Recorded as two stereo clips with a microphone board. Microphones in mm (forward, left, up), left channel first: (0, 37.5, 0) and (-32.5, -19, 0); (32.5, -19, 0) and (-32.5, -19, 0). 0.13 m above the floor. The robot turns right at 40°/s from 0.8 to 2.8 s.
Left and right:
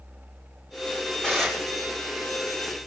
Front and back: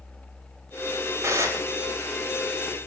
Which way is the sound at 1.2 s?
135° left.